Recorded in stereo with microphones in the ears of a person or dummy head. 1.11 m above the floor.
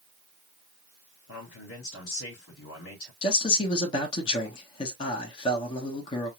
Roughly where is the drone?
I don't hear a drone.